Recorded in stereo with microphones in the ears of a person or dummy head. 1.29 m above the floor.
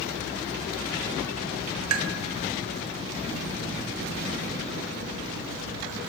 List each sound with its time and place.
1.9 s tapping: 75° right (ahead or behind), 1.1 m